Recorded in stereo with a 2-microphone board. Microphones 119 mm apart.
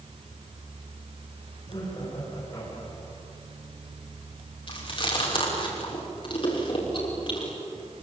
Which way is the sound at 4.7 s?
50° left (ahead or behind).